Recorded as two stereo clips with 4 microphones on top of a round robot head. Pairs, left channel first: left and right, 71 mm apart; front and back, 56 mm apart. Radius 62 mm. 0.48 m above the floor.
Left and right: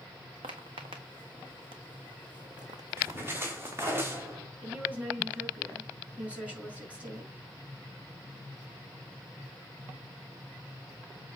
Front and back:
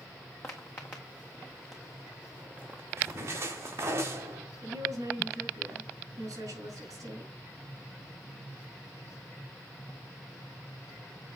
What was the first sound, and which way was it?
Footsteps, 65° right.